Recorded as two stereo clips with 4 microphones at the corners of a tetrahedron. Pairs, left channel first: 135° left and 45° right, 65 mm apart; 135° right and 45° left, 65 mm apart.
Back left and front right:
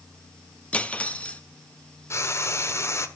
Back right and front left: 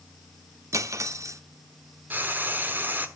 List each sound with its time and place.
0.7 s cutlery clinking: 70° left, 0.7 m
2.1 s frying: 100° left, 1.1 m